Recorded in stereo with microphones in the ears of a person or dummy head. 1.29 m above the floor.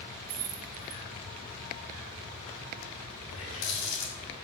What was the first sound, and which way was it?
Keys jangling, 85° right.